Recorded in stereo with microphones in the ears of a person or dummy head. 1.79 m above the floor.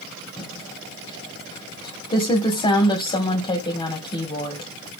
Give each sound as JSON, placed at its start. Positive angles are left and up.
{"t": 0.4, "sound": "typing on a keyboard", "side_deg": 25, "distance_m": 1.9}